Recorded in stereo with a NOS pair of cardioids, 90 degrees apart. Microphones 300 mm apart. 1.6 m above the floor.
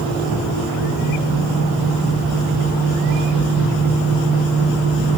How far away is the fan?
About 8 m.